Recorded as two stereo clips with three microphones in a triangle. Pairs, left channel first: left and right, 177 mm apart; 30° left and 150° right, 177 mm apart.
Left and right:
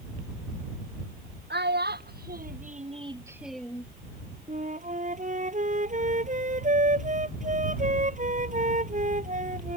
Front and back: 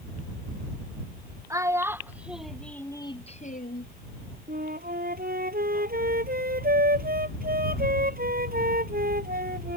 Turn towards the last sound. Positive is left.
turn(degrees=-130)